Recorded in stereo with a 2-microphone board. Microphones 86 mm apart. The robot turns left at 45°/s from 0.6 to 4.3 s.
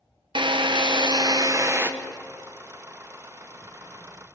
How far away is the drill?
About 1.2 m.